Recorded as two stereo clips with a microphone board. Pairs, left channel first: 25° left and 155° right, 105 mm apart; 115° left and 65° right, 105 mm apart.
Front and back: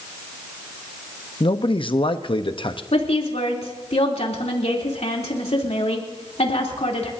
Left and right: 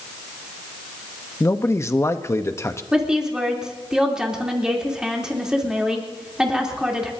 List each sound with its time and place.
1.4 s a man speaking: 50° left, 0.8 m
2.9 s a woman speaking: 15° left, 3 m